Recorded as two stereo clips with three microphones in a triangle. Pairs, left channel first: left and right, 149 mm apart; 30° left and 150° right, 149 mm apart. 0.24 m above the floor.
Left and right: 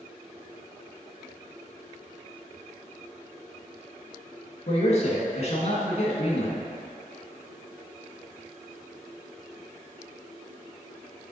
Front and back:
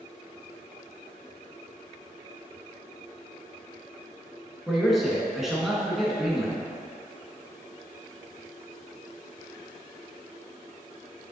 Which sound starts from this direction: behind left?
A man speaking, at 4.7 s.